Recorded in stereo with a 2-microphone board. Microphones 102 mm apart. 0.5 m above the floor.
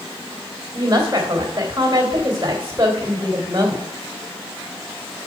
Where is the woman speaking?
25° right (ahead or behind), 2 m.